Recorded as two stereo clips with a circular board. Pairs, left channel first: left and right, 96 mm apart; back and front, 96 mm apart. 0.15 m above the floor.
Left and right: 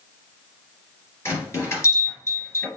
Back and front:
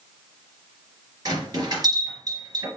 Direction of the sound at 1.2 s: 35° left.